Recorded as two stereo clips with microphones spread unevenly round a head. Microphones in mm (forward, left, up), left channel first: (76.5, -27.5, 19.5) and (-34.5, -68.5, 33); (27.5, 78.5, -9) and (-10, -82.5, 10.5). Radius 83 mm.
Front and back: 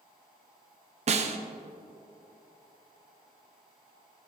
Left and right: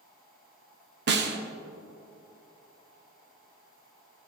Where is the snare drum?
130° right, 1.0 m.